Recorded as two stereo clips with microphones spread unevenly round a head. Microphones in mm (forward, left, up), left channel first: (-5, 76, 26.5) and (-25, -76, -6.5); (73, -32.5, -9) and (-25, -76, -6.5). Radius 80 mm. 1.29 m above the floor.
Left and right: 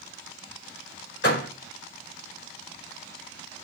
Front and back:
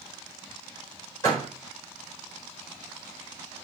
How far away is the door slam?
About 4 m.